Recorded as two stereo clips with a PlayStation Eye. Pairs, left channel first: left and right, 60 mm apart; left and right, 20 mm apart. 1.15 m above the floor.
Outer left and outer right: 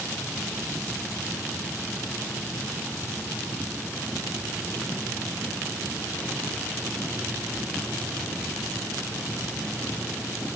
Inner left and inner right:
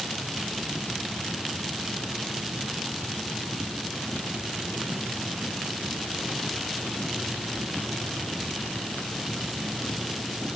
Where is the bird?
No bird in this recording.